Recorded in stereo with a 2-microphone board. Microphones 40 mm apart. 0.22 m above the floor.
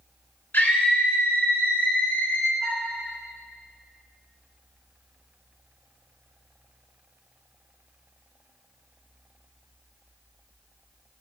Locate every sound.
0.5 s a scream: 60° left (ahead or behind), 3 m
2.6 s a flute: 30° right (ahead or behind), 1.9 m